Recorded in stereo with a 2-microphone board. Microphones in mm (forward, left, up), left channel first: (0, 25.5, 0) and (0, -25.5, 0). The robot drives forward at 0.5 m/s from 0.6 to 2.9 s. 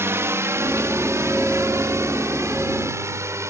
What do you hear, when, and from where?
0.0 s a drone: 60° right (ahead or behind); by 3.5 s 70° right (ahead or behind)